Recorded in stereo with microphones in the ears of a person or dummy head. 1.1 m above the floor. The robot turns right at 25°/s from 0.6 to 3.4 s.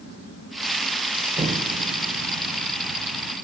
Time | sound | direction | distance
1.4 | an explosion | 160° right | 0.7 m